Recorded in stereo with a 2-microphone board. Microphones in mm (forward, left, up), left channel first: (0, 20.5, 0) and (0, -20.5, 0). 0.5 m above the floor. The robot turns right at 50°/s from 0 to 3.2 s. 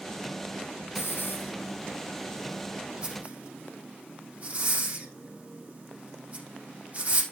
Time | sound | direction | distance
0.9 | a hiss | 80° left | 4.5 m